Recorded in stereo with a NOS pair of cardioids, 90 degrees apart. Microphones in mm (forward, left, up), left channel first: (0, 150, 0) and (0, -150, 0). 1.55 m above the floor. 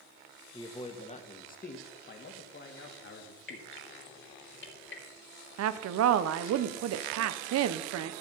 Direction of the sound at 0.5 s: 15° left.